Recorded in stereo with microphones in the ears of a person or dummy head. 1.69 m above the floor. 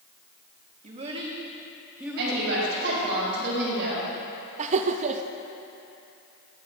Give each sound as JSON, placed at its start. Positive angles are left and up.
{"t": 0.8, "sound": "a child speaking", "side_deg": -35, "distance_m": 1.3}
{"t": 2.2, "sound": "a woman speaking", "side_deg": -70, "distance_m": 4.0}
{"t": 4.6, "sound": "laughter", "side_deg": -40, "distance_m": 0.6}